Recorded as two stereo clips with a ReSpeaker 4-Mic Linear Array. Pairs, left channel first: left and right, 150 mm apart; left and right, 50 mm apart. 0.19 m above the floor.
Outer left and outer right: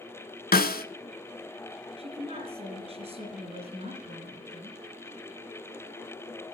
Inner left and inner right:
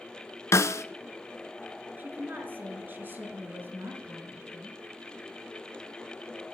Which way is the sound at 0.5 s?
70° left (ahead or behind).